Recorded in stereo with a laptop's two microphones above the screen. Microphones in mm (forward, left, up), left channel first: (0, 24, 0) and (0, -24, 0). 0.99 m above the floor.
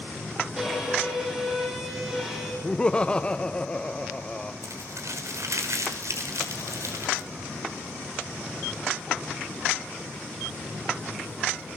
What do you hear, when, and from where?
0.6 s a violin: 10° right (ahead or behind), 7.5 m
2.6 s laughter: 25° left (ahead or behind), 0.7 m
4.6 s crumpling: 80° right, 5 m